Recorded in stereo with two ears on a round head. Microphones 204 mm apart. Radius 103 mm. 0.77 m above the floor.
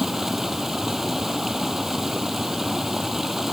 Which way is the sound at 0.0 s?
Centre (ahead or behind).